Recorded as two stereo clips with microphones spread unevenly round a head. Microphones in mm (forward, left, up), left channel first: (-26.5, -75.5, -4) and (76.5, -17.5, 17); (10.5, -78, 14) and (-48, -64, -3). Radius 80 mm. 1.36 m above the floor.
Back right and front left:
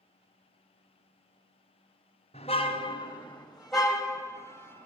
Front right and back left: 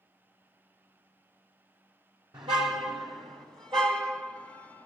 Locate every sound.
2.3 s a car horn: 155° left, 2.5 m; by 4.9 s 95° left, 3 m